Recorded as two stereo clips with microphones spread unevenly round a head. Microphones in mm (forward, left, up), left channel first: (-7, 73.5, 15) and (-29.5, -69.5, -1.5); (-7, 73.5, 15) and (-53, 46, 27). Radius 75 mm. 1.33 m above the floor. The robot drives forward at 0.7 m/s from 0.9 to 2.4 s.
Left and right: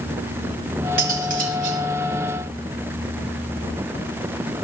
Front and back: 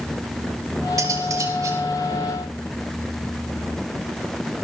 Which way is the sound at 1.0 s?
130° right.